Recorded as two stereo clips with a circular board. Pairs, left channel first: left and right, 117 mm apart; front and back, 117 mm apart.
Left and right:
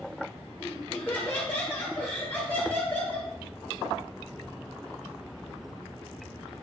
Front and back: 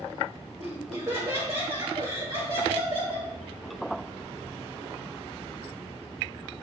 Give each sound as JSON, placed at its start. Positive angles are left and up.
{"t": 0.6, "sound": "laughter", "azimuth_deg": 160, "distance_m": 1.9}